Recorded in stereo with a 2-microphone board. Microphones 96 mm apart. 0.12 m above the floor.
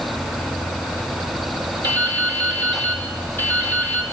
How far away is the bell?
I don't hear a bell.